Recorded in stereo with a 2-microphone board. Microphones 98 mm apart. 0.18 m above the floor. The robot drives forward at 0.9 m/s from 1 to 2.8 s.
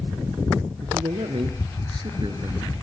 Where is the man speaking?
65° right (ahead or behind), 2.5 m; by 2.7 s 45° right (ahead or behind), 3 m.